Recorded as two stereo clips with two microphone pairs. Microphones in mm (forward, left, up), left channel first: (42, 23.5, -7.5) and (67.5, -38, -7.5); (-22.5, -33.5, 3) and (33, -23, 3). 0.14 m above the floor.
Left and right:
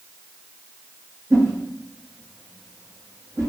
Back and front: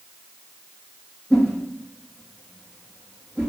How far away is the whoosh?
About 2 m.